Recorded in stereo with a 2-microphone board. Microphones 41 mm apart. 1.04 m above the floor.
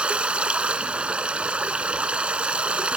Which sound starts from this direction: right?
Running water, at 0.0 s.